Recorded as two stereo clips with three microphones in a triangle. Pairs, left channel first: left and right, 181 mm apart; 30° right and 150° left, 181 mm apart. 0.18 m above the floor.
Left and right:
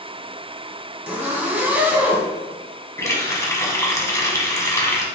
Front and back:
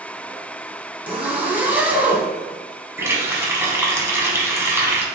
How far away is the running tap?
About 0.9 m.